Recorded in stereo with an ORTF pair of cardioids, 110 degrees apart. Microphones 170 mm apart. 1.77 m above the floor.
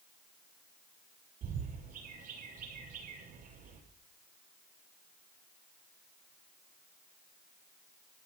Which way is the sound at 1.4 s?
55° right.